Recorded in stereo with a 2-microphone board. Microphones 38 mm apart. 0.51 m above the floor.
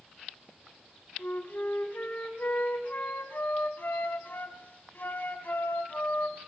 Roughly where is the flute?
Left.